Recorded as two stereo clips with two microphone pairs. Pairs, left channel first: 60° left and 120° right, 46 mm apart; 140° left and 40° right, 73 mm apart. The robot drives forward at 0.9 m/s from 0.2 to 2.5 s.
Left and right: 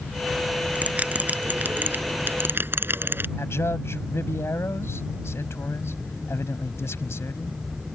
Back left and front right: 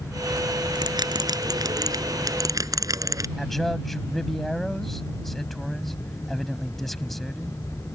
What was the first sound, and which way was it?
A bell, 60° right.